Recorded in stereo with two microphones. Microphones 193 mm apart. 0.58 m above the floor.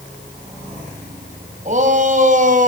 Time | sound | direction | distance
1.6 | a shout | 40° right (ahead or behind) | 4 m